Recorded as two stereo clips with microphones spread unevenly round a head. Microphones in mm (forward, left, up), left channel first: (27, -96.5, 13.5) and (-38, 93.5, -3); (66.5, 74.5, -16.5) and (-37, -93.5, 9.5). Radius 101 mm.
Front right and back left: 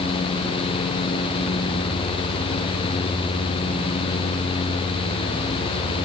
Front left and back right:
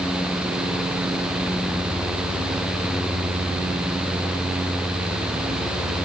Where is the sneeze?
No sneeze in this recording.